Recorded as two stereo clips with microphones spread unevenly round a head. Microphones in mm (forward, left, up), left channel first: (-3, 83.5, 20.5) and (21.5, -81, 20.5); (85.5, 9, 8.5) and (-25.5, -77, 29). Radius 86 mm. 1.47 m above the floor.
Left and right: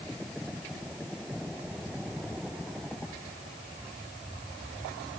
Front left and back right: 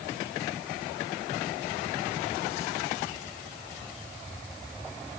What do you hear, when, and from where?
Only background noise.